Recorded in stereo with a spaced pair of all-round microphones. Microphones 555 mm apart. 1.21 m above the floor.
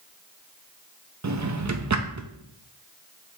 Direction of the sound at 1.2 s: 35° right (ahead or behind).